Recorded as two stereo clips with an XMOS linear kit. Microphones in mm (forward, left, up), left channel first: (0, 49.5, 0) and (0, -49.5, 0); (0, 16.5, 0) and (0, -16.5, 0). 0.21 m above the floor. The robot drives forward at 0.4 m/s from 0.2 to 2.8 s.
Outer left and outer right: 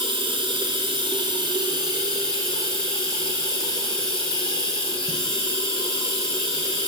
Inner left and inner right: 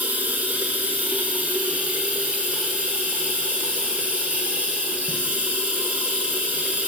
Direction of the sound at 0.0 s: 65° right (ahead or behind).